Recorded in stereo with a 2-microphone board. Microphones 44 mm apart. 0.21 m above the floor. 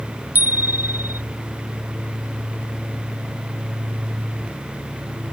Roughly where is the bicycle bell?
Right.